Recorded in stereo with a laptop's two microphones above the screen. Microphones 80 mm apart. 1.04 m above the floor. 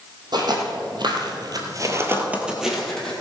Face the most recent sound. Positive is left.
turn(degrees=10)  # may be behind; listen again after turning